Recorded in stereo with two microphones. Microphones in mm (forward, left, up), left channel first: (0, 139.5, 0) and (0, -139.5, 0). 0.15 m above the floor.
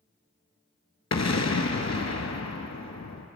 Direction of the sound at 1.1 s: 70° left (ahead or behind).